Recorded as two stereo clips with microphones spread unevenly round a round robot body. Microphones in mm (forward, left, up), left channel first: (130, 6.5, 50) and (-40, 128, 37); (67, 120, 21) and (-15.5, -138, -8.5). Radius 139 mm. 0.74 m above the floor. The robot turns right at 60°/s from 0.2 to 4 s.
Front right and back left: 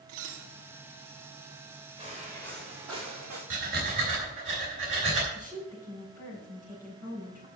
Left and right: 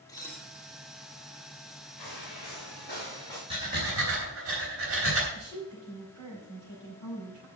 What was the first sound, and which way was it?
Dishes clattering, 150° left.